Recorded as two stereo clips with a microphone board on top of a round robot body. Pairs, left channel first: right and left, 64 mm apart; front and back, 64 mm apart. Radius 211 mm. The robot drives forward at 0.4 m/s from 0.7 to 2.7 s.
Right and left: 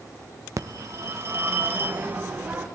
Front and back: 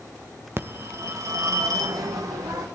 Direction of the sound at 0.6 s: 130° left.